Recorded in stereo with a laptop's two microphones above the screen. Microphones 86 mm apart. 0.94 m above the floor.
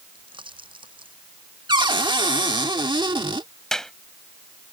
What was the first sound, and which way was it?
A pop, 80° right.